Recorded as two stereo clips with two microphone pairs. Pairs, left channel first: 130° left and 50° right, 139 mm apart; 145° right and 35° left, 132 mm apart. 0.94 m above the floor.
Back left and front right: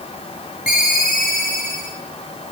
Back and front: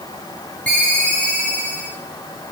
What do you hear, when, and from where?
0.7 s a ringtone: 135° left, 7 m